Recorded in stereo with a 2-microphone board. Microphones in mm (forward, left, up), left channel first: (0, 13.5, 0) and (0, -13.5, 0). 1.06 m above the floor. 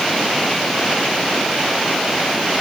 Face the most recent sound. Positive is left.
No sound to turn to.